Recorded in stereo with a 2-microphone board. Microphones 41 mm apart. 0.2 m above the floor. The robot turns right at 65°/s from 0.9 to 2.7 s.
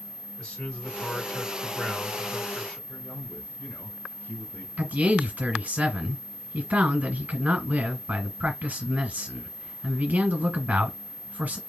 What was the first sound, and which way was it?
A man speaking, 25° left.